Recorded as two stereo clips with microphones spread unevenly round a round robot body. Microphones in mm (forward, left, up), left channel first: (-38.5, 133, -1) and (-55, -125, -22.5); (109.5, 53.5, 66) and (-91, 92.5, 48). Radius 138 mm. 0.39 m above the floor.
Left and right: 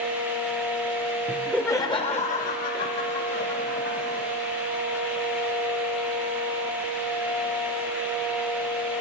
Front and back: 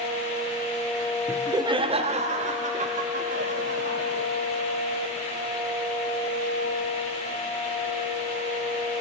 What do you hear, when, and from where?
1.3 s laughter: 150° right, 0.8 m; by 4.3 s 125° left, 2.0 m